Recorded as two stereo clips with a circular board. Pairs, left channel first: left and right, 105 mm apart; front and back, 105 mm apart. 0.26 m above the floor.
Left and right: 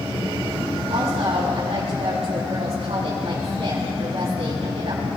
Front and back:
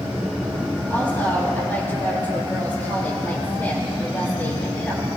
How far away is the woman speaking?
About 4 m.